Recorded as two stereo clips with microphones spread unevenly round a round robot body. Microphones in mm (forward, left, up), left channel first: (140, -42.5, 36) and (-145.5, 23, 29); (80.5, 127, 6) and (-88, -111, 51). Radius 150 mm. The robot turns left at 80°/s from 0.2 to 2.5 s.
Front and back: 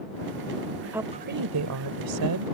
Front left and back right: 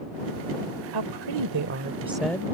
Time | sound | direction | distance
0.9 | a woman speaking | 110° right | ?